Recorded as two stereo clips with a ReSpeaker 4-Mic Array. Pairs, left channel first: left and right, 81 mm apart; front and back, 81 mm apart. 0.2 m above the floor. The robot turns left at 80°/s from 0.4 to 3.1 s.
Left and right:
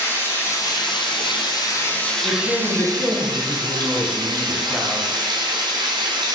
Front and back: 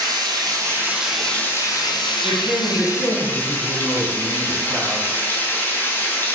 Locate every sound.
0.0 s running water: 150° left, 1.1 m; by 6.3 s 65° right, 1.1 m
2.2 s a woman speaking: 60° right, 1.1 m; by 5.1 s 130° right, 1.1 m